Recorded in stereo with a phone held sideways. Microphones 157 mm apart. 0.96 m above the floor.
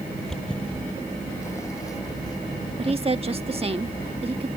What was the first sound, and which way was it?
Footsteps, centre (ahead or behind).